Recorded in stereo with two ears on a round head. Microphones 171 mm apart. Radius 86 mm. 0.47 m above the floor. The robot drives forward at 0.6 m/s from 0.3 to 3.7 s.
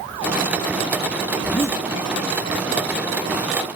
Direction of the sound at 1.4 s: 10° left (ahead or behind).